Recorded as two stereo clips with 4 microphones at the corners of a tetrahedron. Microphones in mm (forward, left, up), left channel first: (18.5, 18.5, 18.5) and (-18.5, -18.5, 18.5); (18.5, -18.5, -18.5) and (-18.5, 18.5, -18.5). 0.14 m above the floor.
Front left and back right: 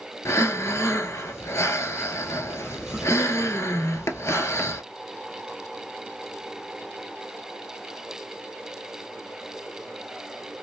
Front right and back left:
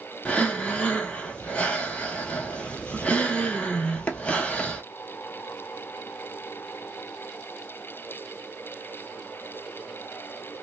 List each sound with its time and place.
0.2 s breathing: 25° left, 0.6 m